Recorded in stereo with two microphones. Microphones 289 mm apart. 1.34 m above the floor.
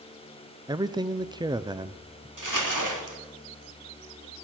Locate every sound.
0.7 s a man speaking: 15° right (ahead or behind), 0.5 m
2.4 s crumpling: 80° right, 2.5 m